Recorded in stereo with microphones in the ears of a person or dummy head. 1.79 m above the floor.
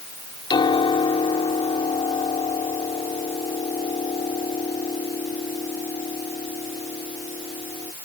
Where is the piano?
25° left (ahead or behind).